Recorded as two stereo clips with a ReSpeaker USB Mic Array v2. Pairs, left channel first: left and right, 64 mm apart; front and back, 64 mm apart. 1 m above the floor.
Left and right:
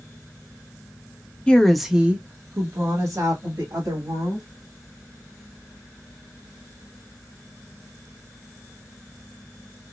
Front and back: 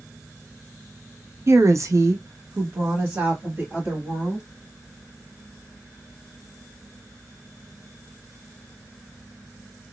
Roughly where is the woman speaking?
Behind left.